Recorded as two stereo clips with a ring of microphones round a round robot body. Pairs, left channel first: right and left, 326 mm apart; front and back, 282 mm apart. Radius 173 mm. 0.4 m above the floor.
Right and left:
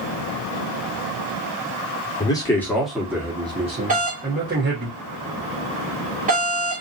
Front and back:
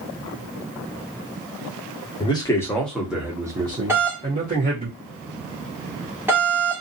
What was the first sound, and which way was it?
A man speaking, 40° right.